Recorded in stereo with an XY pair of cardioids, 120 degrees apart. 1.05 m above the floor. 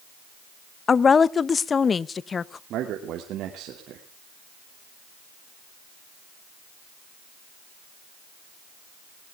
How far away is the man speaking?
About 2.5 m.